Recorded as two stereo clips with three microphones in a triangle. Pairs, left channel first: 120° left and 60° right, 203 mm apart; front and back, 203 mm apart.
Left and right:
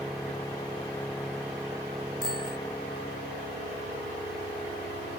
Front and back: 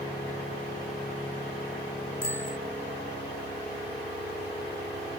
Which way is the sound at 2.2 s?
20° right.